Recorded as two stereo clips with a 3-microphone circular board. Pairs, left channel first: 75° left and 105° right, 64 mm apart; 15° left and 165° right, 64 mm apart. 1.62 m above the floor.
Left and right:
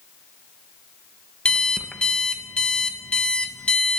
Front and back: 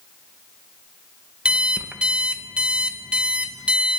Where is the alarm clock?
135° left, 0.9 m.